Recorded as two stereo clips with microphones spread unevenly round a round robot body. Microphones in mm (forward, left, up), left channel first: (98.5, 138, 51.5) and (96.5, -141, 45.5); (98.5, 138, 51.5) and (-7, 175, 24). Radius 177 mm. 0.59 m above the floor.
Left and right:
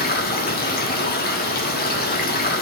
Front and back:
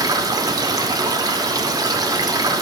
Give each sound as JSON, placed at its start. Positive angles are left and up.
{"t": 0.0, "sound": "running water", "azimuth_deg": 140, "distance_m": 1.2}